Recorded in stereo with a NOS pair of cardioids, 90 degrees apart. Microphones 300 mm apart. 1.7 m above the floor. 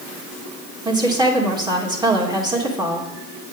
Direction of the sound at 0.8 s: 15° right.